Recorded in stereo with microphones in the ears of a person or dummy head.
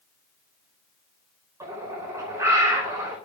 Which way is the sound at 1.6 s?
15° right (ahead or behind).